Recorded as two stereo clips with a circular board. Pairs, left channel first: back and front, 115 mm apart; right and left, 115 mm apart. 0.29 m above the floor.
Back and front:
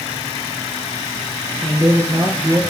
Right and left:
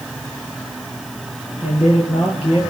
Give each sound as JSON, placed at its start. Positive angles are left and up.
{"t": 1.6, "sound": "a man speaking", "azimuth_deg": -70, "distance_m": 7.0}